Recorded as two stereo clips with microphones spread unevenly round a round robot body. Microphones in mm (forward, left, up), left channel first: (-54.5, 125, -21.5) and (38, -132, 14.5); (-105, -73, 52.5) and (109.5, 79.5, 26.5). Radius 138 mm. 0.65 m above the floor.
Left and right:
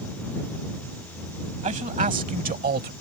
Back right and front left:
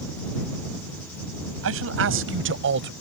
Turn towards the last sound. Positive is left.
turn(degrees=-10)